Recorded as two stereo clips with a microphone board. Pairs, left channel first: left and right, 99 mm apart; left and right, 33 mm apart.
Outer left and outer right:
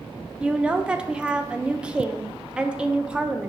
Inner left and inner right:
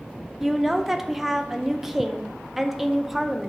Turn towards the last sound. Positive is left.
turn(degrees=-10)  # may be behind; listen again after turning